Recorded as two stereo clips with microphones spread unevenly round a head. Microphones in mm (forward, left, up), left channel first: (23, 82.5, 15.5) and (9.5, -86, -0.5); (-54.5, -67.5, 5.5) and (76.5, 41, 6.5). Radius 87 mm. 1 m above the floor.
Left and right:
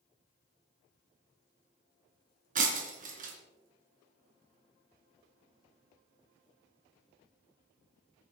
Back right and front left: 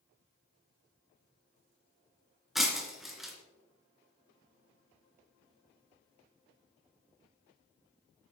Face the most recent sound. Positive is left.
turn(degrees=-50)